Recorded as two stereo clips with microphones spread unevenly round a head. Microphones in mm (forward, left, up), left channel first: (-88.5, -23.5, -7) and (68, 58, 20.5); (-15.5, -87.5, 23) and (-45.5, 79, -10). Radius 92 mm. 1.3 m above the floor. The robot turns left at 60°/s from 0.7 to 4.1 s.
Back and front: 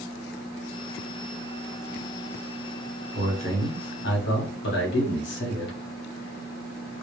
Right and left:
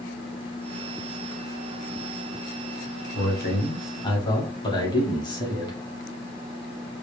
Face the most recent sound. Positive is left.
turn(degrees=-150)